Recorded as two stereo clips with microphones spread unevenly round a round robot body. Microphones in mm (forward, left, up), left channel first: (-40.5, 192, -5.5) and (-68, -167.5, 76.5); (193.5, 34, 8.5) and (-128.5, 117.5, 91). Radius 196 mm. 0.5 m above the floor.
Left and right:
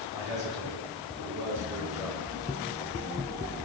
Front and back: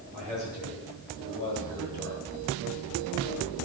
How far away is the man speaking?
About 9 m.